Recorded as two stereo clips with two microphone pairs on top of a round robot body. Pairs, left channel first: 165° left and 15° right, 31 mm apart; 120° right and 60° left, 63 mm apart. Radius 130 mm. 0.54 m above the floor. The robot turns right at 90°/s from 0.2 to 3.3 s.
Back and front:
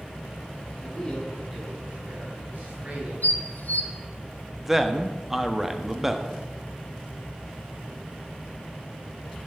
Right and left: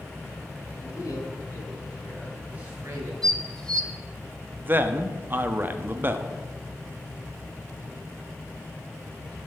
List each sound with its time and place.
0.8 s a man speaking: 170° right, 5 m; by 3.1 s 40° left, 5 m
3.2 s dishes clattering: 155° left, 1.0 m; by 3.9 s 165° left, 1.0 m
4.6 s a man speaking: 60° left, 1.0 m